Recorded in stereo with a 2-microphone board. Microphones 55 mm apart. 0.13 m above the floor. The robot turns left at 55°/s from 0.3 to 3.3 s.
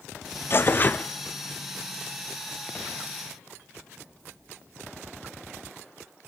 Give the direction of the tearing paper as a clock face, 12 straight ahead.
10 o'clock.